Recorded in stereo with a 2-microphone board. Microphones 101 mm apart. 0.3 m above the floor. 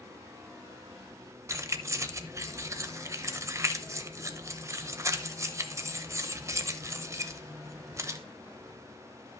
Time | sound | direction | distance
1.5 | keys jangling | 30° right (ahead or behind) | 0.6 m